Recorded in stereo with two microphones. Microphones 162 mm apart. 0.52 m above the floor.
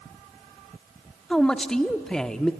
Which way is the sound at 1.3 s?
5° left (ahead or behind).